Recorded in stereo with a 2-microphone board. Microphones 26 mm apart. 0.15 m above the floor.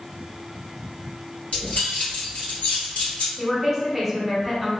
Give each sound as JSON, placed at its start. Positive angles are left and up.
{"t": 1.5, "sound": "keys jangling", "side_deg": 60, "distance_m": 2.0}
{"t": 3.4, "sound": "a woman speaking", "side_deg": -5, "distance_m": 1.1}